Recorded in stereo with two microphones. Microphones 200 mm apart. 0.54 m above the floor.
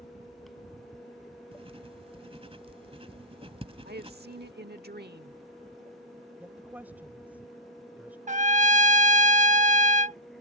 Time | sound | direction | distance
1.5 | writing | 30° right (ahead or behind) | ?
3.9 | a woman speaking | 55° right (ahead or behind) | ?
6.4 | a woman speaking | 10° right (ahead or behind) | ?
8.3 | a trumpet | 35° right (ahead or behind) | ?